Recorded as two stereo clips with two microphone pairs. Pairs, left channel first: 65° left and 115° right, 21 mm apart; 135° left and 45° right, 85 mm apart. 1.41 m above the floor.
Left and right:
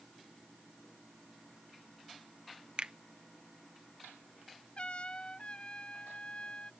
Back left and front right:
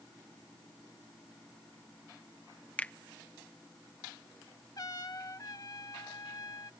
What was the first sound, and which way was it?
A finger snap, 150° right.